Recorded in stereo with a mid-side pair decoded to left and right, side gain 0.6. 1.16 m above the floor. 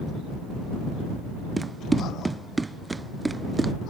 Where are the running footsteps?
15° right.